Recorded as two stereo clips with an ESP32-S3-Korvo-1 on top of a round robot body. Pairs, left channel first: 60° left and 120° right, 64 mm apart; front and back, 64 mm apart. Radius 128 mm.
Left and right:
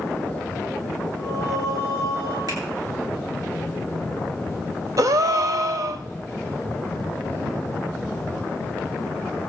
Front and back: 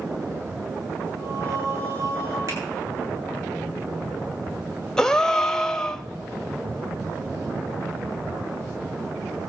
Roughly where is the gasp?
Right.